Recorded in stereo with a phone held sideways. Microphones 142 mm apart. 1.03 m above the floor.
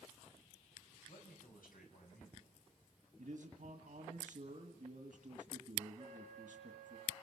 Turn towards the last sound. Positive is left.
turn(degrees=-45)  # may be behind; listen again after turning